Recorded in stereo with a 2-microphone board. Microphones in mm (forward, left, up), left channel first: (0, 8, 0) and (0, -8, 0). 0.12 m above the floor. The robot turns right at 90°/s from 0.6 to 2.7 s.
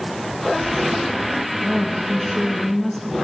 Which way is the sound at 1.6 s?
20° right (ahead or behind).